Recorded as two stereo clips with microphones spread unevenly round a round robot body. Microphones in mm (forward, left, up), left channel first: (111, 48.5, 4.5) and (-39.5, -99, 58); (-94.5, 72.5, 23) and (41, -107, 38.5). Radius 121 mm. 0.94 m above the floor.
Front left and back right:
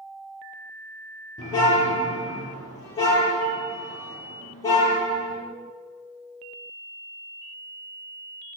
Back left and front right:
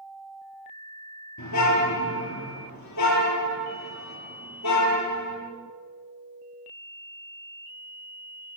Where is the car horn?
120° left, 9 m.